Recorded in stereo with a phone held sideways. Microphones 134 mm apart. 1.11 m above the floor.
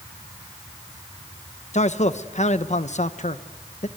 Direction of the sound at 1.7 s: 55° left (ahead or behind).